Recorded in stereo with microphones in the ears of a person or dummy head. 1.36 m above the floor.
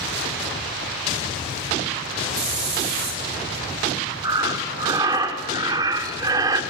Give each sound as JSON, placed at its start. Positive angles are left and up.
{"t": 2.3, "sound": "a hiss", "side_deg": -45, "distance_m": 3.0}
{"t": 4.2, "sound": "breathing", "side_deg": -20, "distance_m": 1.6}